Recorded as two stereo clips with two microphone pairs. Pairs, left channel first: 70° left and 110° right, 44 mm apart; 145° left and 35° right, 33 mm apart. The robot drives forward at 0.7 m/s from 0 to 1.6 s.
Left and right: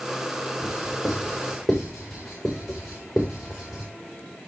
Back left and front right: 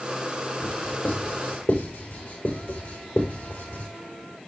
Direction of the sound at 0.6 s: 160° left.